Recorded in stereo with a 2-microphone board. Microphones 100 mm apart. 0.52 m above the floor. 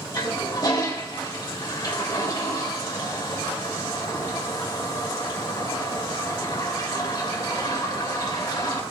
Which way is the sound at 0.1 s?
40° left (ahead or behind).